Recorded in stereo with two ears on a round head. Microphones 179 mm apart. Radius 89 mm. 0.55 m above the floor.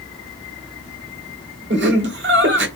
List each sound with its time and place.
1.7 s laughter: 60° right (ahead or behind), 1.4 m